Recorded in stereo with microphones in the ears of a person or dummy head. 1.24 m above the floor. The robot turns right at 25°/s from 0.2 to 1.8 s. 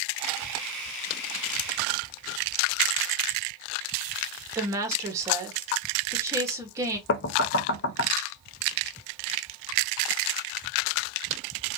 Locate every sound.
4.5 s a woman speaking: 25° right (ahead or behind), 1.4 m
7.1 s knocking: 50° left (ahead or behind), 0.5 m